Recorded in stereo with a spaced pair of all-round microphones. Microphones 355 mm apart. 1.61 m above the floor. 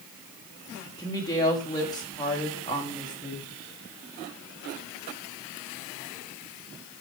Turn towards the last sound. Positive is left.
turn(degrees=10)  # may be behind; listen again after turning